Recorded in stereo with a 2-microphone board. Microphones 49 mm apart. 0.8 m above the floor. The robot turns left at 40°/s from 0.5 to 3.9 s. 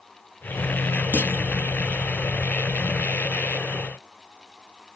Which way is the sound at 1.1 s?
35° left (ahead or behind).